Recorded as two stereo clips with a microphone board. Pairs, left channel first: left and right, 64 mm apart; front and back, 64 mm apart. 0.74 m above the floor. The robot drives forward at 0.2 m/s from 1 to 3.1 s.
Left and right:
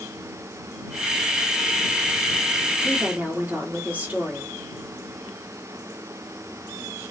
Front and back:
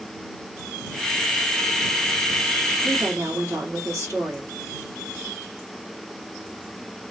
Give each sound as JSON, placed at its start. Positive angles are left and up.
{"t": 2.8, "sound": "a woman speaking", "azimuth_deg": -150, "distance_m": 1.6}